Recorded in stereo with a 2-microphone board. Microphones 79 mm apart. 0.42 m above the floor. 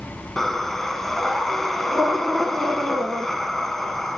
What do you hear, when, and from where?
0.4 s breathing: 5° left (ahead or behind), 0.8 m